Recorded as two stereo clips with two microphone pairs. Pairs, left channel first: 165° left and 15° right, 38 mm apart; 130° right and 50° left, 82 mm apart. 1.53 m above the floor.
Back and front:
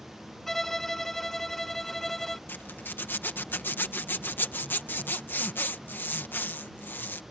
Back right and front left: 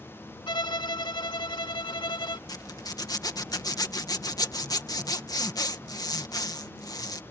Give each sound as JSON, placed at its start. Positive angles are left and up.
{"t": 0.5, "sound": "a violin", "azimuth_deg": -115}
{"t": 2.5, "sound": "a zipper", "azimuth_deg": -170}